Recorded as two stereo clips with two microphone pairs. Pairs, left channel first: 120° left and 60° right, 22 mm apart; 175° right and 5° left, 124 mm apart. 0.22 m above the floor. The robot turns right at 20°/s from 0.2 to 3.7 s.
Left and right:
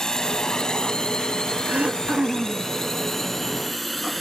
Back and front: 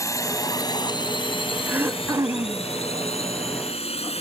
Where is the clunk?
I don't hear a clunk.